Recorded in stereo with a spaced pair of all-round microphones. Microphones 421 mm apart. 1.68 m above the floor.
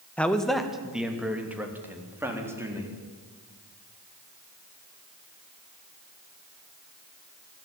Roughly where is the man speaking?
Centre.